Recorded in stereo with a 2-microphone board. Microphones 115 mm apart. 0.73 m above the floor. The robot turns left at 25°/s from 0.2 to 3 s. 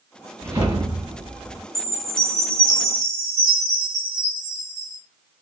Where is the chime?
105° right, 1.7 m; by 5.0 s 140° right, 1.7 m.